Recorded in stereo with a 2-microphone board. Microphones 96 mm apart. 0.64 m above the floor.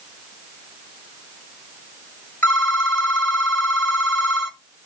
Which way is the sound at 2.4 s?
25° left (ahead or behind).